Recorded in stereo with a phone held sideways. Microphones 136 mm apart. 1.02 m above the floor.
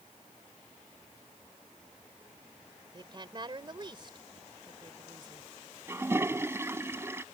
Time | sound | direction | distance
2.9 | a woman speaking | 35° right (ahead or behind) | ?
5.9 | a toilet flushing | 20° right (ahead or behind) | ?